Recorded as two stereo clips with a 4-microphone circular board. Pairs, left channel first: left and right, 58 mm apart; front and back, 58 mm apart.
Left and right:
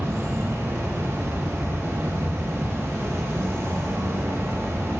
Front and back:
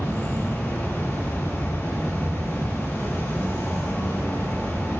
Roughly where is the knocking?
No knocking in this recording.